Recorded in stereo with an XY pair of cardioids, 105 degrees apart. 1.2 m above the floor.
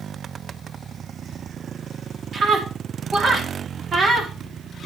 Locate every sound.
2.3 s a scream: 45° right, 3 m